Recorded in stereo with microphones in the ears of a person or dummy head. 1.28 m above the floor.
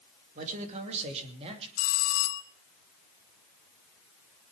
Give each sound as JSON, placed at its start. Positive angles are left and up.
{"t": 0.3, "sound": "a man speaking", "side_deg": -45, "distance_m": 2.5}
{"t": 1.8, "sound": "a bell", "side_deg": 80, "distance_m": 1.6}